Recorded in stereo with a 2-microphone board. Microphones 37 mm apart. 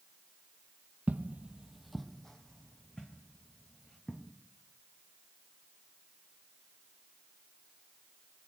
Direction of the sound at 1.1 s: 50° right (ahead or behind).